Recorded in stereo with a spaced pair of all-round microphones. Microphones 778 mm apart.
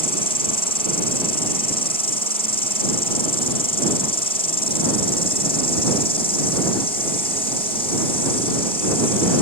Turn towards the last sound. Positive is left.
turn(degrees=5)  # may be behind; listen again after turning